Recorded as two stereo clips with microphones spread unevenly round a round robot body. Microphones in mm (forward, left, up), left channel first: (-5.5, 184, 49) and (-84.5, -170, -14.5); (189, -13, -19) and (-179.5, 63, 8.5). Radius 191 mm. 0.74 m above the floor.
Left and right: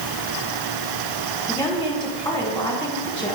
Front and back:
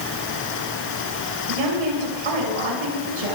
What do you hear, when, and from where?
1.5 s a woman speaking: 160° left, 6.5 m